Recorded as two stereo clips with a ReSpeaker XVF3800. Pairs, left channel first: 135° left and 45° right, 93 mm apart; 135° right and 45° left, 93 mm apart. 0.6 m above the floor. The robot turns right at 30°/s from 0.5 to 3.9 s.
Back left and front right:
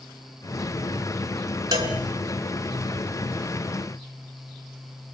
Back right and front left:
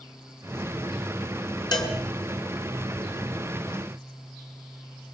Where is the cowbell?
95° right, 4.5 m; by 1.9 s 85° right, 4.5 m.